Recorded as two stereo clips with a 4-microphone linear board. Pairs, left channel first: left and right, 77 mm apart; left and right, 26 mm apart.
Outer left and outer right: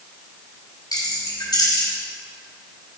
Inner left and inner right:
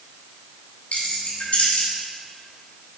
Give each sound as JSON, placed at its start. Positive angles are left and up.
{"t": 0.9, "sound": "keys jangling", "side_deg": 65, "distance_m": 2.5}